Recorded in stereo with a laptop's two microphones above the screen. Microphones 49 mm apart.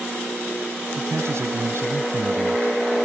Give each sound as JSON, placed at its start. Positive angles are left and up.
{"t": 1.0, "sound": "a man speaking", "side_deg": -65}